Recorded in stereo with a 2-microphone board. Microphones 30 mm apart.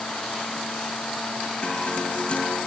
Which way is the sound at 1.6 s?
40° left (ahead or behind).